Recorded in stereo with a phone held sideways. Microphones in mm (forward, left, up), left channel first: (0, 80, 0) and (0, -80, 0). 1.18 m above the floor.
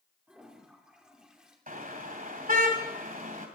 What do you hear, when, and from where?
0.3 s a toilet flushing: 5° right (ahead or behind), 2.5 m
1.7 s a car horn: 65° right (ahead or behind), 2.5 m